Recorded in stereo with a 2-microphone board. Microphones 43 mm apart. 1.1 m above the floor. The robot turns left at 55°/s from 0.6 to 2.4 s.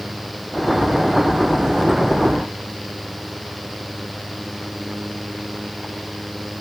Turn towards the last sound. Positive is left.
No sound to turn to.